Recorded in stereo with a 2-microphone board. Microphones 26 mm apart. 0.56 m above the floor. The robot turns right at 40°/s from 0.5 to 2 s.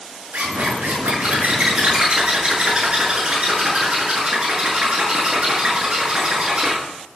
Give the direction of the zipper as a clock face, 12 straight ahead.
3 o'clock.